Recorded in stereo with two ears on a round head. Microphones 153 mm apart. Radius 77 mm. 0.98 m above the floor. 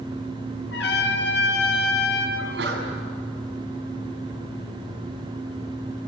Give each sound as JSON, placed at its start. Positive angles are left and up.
{"t": 0.7, "sound": "a trumpet", "side_deg": 75, "distance_m": 5.0}
{"t": 2.4, "sound": "a sneeze", "side_deg": -70, "distance_m": 7.5}